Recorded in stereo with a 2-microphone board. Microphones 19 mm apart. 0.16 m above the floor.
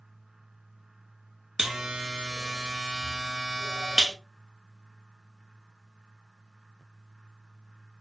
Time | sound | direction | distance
1.6 | a buzzer | 35° right (ahead or behind) | 1.0 m